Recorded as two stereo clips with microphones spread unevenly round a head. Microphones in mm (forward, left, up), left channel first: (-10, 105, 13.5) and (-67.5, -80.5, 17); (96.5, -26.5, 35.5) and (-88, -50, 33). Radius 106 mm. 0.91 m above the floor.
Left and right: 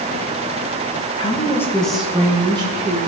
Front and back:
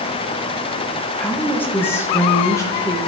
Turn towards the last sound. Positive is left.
turn(degrees=-60)